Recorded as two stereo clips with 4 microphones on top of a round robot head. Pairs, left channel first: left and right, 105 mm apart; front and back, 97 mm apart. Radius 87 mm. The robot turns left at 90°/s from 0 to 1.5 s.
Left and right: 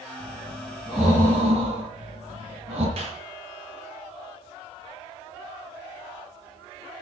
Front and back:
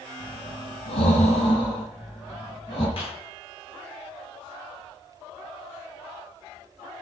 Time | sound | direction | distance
0.2 | breathing | 70° left | 9.5 m
3.0 | a clap | 45° right | 8.5 m